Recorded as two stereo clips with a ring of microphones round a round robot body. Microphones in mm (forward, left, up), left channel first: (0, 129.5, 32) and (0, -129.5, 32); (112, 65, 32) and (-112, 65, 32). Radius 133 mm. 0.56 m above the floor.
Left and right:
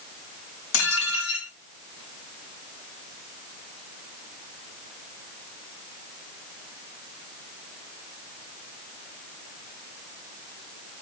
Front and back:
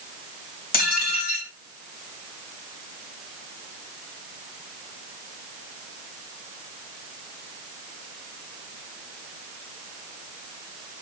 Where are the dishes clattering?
50° left, 3 m.